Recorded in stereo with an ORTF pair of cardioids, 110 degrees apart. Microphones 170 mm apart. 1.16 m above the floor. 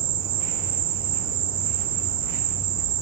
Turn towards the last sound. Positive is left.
turn(degrees=-65)